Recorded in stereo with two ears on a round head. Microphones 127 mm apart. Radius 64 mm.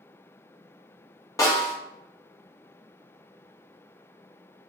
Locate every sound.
1.4 s a snare drum: 25° left (ahead or behind), 1.2 m